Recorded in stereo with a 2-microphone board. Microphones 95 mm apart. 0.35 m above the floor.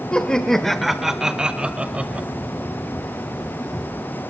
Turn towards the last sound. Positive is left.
turn(degrees=-15)  # may be behind; listen again after turning